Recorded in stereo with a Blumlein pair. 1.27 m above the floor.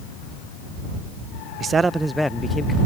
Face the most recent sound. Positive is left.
turn(degrees=15)